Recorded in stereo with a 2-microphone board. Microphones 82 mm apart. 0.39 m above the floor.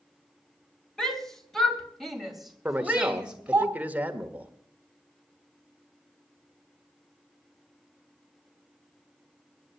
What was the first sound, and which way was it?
A shout, 10° left (ahead or behind).